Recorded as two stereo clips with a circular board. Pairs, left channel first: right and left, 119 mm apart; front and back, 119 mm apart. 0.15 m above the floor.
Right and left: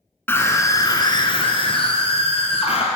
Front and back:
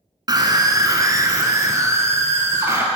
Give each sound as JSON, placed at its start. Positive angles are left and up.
{"t": 0.3, "sound": "a scream", "azimuth_deg": -150, "distance_m": 1.3}